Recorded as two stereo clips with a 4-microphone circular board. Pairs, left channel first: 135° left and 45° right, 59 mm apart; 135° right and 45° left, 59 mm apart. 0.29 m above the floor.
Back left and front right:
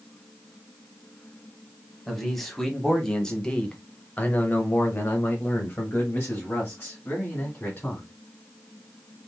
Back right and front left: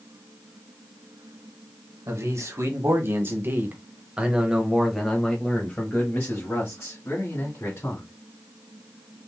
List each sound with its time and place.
2.1 s a man speaking: 45° left, 1.6 m; by 8.1 s 165° right, 2 m